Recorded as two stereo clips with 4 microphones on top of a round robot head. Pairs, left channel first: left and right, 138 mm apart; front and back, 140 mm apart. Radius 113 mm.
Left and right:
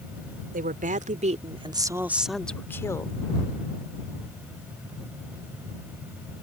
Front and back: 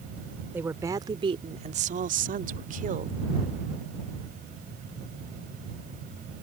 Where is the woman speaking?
100° right; by 3.2 s 155° left.